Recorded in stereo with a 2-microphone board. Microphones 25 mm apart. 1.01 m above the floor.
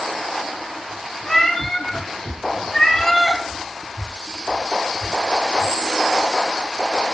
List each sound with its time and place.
1.2 s a cat meowing: 5° left (ahead or behind), 7.5 m; by 3.4 s 15° left (ahead or behind), 9 m